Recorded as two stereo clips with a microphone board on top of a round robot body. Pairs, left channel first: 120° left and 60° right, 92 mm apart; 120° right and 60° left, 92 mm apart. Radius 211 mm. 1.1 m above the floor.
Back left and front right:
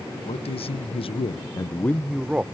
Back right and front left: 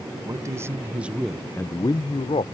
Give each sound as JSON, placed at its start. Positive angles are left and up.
{"t": 0.2, "sound": "a man speaking", "azimuth_deg": 115}